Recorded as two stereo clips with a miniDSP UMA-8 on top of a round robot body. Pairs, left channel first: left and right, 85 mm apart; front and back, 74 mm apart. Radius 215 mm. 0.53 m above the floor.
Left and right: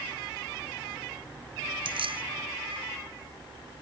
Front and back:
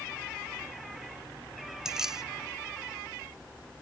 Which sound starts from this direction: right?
Keys jangling, at 1.9 s.